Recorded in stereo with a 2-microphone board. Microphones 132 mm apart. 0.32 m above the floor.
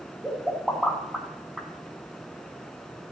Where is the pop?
5° right (ahead or behind), 3 m.